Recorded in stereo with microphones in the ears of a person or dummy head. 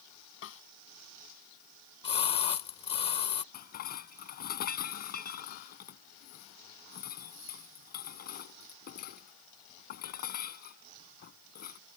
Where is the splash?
35° left (ahead or behind).